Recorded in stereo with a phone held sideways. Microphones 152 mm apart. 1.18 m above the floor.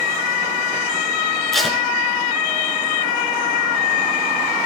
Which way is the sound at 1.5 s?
5° left (ahead or behind).